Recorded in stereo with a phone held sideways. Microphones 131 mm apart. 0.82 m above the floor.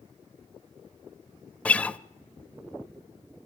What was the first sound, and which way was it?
A guitar, 10° left (ahead or behind).